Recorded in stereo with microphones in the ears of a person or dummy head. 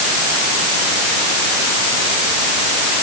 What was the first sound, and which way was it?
Only background noise.